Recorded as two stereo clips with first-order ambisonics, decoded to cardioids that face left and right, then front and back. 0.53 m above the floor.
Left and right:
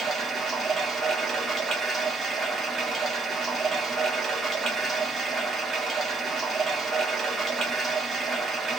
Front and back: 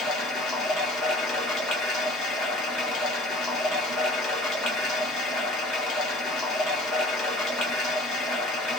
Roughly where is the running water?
Ahead.